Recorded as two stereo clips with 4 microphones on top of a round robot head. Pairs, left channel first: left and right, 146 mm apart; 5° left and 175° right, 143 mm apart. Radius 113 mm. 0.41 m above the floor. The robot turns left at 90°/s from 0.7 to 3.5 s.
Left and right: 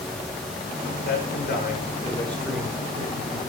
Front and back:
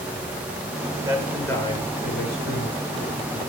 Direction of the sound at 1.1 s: 120° left.